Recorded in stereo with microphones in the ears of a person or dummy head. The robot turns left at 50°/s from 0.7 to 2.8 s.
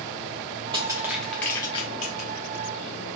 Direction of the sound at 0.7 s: 25° right (ahead or behind).